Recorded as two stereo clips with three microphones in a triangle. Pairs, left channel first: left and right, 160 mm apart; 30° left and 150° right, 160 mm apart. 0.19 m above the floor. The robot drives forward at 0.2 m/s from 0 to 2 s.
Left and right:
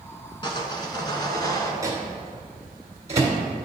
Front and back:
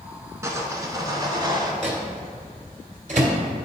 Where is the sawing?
145° left, 0.8 m; by 1.7 s 155° left, 1.0 m.